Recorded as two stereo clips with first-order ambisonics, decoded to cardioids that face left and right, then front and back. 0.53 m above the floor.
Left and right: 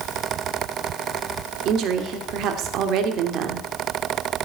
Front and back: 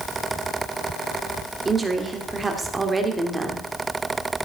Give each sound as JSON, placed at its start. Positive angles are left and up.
{"t": 1.6, "sound": "a woman speaking", "azimuth_deg": -105, "distance_m": 1.3}